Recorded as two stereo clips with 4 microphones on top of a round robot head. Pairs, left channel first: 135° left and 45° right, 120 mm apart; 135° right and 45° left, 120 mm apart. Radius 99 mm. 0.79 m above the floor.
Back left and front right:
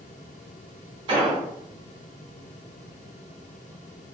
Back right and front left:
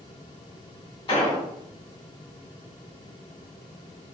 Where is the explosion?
95° right, 1.9 m.